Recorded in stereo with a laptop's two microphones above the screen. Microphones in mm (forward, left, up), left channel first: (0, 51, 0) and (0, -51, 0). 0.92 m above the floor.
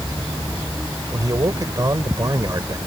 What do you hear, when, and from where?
1.1 s a man speaking: 35° right (ahead or behind)